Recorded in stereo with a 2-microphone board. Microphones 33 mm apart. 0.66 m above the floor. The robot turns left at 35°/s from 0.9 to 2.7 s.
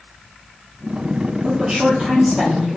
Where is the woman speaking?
125° right, 1.1 m; by 2.8 s 170° right, 1.1 m.